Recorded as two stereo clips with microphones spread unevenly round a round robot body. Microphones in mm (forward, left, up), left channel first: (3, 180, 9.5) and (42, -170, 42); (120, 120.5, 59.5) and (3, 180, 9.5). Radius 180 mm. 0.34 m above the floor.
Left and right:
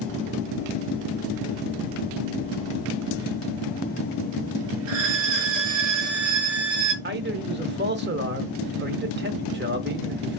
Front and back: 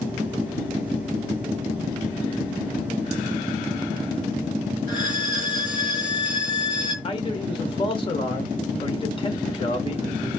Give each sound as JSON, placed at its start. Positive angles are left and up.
{"t": 4.9, "sound": "a violin", "azimuth_deg": -100, "distance_m": 4.0}
{"t": 7.0, "sound": "a man speaking", "azimuth_deg": -75, "distance_m": 1.1}